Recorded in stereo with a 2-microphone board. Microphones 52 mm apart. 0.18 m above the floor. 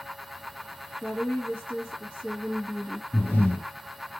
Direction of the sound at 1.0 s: 40° left (ahead or behind).